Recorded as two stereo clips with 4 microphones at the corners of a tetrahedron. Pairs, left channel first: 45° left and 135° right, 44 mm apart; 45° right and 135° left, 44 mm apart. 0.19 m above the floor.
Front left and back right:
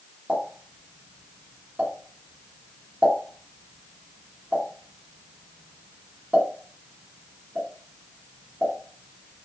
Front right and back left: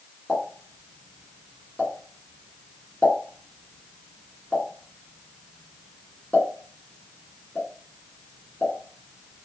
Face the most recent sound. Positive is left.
turn(degrees=-90)